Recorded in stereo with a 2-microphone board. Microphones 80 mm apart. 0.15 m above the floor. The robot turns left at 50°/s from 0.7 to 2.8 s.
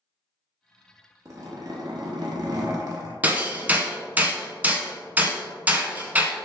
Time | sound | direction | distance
1.2 | a zipper | 45° right | 1.0 m
3.2 | hammering | 20° right (ahead or behind) | 0.6 m